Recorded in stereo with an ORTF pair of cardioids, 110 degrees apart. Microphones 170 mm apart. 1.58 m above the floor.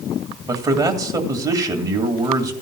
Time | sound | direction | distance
0.5 | a man speaking | 20° right | 2 m